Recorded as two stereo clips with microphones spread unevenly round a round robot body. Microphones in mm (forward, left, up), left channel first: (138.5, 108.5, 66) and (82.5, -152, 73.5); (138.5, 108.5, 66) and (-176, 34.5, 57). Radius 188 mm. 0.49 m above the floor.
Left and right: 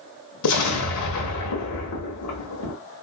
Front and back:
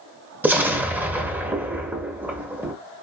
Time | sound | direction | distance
0.4 | an explosion | 110° left | 0.8 m